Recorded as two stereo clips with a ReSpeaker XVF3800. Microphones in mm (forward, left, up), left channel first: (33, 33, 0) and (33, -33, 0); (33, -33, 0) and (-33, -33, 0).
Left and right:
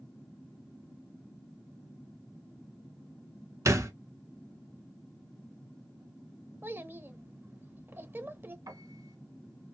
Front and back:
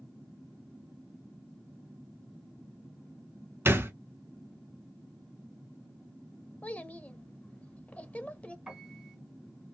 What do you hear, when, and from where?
3.6 s a thud: 125° right, 0.6 m
6.6 s a child speaking: 60° right, 0.6 m
8.7 s a piano: 95° right, 2 m